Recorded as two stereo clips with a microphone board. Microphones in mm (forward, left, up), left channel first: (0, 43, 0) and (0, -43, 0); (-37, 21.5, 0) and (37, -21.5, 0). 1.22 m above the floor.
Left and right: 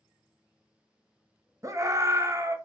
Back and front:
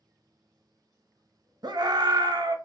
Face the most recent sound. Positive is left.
turn(degrees=-45)